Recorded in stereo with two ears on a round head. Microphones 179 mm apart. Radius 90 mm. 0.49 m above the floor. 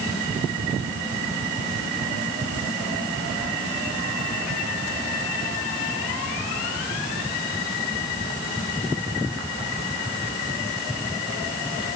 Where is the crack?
No crack in this recording.